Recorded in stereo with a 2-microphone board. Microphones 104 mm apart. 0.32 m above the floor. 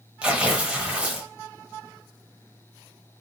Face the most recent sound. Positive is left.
turn(degrees=-10)  # may be behind; listen again after turning